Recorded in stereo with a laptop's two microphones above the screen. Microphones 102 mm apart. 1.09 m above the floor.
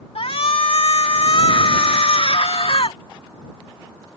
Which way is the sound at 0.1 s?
70° left (ahead or behind).